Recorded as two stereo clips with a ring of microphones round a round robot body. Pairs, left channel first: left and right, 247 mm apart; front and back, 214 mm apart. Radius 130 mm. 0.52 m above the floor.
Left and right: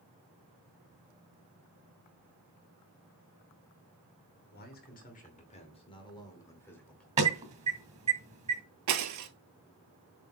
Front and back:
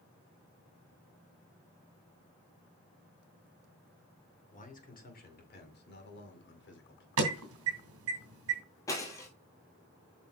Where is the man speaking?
45° left, 2.5 m; by 7.1 s 5° left, 2 m.